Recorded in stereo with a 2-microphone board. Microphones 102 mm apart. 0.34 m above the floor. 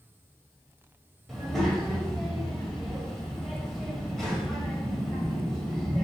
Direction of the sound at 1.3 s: 5° left (ahead or behind).